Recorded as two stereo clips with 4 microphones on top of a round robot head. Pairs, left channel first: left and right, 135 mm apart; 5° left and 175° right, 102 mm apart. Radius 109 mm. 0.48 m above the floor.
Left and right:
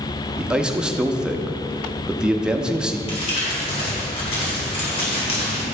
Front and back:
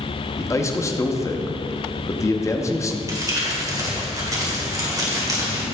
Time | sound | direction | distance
0.4 | a man speaking | 10° right | 0.9 m
3.1 | crumpling | 130° left | 2.5 m